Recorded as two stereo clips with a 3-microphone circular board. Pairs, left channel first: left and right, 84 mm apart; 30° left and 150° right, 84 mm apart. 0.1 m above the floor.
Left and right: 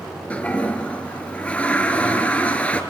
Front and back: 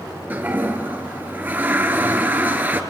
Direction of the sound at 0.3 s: 155° left.